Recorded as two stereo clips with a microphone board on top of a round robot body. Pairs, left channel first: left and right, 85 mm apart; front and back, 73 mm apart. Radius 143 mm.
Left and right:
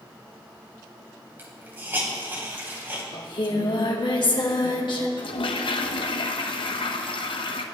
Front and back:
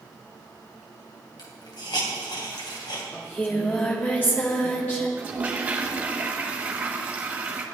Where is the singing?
65° left, 2.5 m.